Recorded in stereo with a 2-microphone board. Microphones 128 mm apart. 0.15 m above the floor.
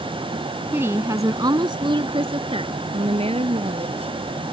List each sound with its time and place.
0.7 s a woman speaking: 15° right (ahead or behind); by 4.2 s 55° right (ahead or behind)